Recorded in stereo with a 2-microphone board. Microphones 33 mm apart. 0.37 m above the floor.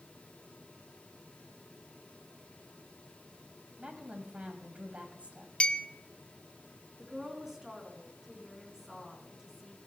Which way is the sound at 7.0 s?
15° right (ahead or behind).